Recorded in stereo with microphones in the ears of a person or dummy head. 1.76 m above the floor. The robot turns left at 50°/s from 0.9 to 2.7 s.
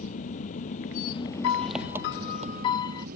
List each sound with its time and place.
0.0 s an engine running: 40° left; by 3.2 s 50° right
1.4 s a piano: 90° left; by 3.1 s 25° left